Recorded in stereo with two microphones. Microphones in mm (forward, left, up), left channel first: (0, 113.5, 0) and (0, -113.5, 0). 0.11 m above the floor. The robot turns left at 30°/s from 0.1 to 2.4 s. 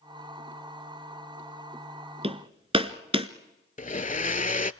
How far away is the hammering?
About 1.2 m.